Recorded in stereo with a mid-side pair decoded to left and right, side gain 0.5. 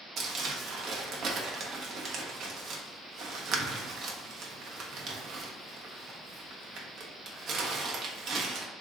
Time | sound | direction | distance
0.2 | crumpling | 60° right | 0.9 m